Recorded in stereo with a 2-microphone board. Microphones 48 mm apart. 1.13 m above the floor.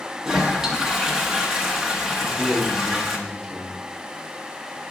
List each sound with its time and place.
0.2 s a toilet flushing: 10° right (ahead or behind), 1.0 m
2.2 s a man speaking: 10° left (ahead or behind), 2 m